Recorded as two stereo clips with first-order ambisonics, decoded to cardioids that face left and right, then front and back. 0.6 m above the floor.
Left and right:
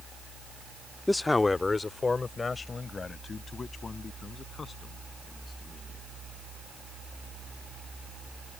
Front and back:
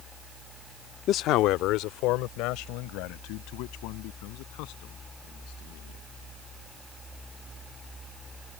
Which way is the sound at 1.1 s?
5° left.